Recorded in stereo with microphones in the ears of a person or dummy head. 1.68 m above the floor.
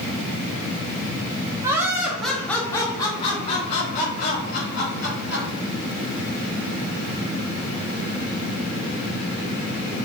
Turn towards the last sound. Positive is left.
turn(degrees=65)  # may be behind; listen again after turning